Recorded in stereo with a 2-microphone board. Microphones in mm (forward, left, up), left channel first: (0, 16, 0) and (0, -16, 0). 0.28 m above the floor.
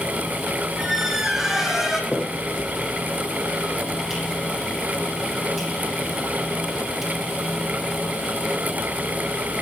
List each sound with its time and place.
0.8 s a squeak: 10° right (ahead or behind), 3 m
2.1 s a finger snap: 15° right (ahead or behind), 10 m